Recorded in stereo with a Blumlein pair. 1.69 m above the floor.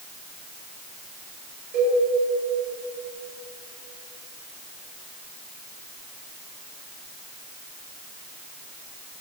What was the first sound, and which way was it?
A cowbell, 40° right.